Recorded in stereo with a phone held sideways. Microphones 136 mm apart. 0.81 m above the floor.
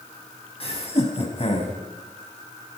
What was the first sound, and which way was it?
Laughter, 50° left (ahead or behind).